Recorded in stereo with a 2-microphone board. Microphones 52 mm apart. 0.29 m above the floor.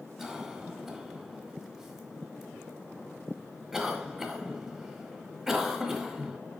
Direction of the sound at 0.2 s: 5° right (ahead or behind).